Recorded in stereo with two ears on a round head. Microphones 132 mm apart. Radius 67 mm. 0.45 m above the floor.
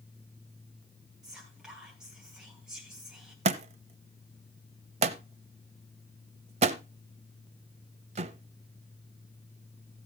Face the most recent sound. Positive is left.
turn(degrees=-40)  # may be behind; listen again after turning